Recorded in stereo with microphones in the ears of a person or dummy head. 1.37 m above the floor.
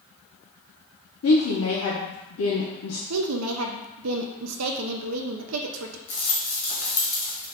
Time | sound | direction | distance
1.2 | a woman speaking | 75° left (ahead or behind) | 0.7 m
3.1 | a woman speaking | 85° right | 0.5 m
6.1 | a rattle | 40° left (ahead or behind) | 0.8 m